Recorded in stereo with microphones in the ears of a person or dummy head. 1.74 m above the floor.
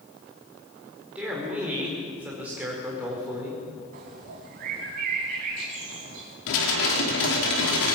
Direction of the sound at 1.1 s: 10° right (ahead or behind).